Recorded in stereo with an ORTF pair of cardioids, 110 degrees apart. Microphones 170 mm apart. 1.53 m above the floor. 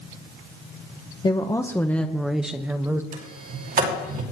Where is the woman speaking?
30° left, 1.0 m; by 3.0 s 15° right, 1.4 m.